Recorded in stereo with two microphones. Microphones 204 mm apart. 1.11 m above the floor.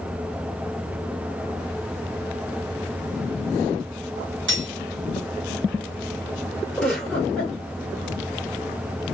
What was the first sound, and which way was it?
Cutlery clinking, 70° right (ahead or behind).